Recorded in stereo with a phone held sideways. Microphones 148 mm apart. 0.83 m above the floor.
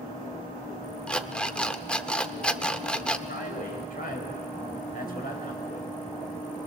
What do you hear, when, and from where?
1.1 s an alarm clock: 5° left (ahead or behind), 0.6 m
3.3 s a man speaking: 75° left (ahead or behind), 4 m